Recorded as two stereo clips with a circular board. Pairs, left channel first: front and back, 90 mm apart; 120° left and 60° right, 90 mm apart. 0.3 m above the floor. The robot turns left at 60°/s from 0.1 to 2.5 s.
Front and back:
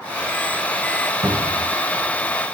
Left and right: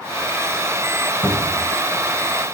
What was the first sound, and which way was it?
A cupboard door, 170° right.